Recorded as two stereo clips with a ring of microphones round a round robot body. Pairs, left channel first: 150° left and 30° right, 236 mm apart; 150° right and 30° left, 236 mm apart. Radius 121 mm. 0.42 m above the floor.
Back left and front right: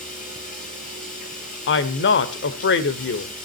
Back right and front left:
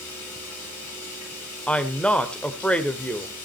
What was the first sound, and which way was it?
Running water, 150° right.